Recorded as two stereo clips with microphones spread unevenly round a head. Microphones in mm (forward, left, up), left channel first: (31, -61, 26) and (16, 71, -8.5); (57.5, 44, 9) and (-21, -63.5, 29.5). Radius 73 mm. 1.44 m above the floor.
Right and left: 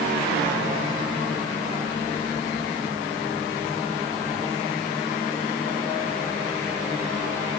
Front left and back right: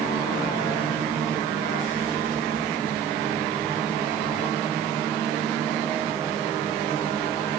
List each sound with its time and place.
Only background noise.